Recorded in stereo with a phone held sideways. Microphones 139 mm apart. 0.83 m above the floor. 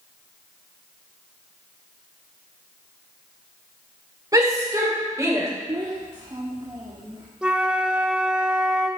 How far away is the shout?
About 2.5 m.